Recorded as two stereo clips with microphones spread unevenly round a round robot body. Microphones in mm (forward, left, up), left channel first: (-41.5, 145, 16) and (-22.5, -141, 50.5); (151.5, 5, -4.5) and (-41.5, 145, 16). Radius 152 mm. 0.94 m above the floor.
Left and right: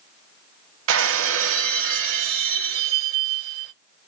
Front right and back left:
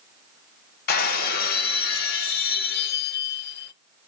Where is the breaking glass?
85° right, 1.0 m.